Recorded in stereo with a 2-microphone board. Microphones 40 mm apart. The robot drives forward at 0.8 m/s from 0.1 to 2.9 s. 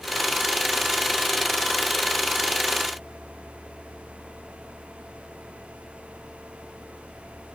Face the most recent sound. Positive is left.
No sound to turn to.